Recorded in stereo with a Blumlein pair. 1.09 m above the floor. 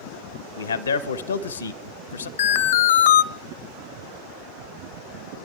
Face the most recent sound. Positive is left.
turn(degrees=60)